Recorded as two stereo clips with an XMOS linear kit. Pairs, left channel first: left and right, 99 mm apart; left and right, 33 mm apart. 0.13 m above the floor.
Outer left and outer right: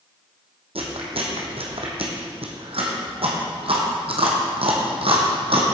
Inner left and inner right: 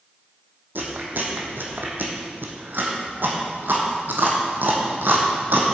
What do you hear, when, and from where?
0.8 s chewing: 75° right (ahead or behind), 1.6 m